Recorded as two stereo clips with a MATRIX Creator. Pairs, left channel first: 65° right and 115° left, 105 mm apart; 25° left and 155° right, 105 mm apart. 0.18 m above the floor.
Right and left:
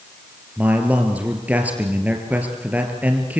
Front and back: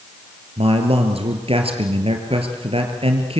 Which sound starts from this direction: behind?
A man speaking, at 0.6 s.